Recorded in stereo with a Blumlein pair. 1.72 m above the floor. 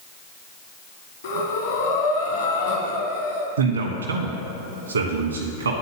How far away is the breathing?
About 1.2 m.